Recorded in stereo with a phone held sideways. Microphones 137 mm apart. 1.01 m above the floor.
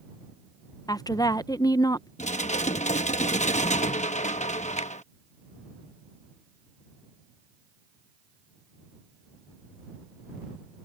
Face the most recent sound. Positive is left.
turn(degrees=60)  # may be behind; listen again after turning